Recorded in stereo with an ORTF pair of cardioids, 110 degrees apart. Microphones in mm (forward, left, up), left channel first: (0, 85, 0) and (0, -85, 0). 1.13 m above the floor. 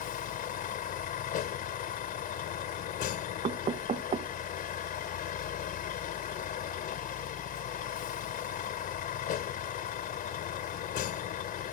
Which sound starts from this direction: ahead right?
Knocking, at 3.4 s.